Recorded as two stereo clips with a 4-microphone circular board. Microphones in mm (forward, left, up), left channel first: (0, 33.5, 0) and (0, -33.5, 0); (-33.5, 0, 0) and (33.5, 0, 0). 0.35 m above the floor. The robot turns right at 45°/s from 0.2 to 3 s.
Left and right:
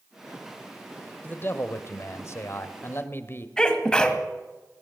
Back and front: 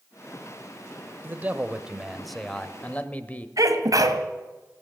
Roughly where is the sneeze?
Ahead.